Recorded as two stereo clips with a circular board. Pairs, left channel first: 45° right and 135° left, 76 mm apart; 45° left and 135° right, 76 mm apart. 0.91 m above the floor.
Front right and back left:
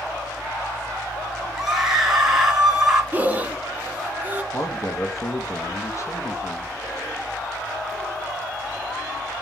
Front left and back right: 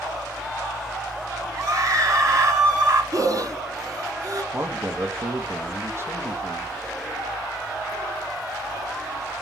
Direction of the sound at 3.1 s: 160° right.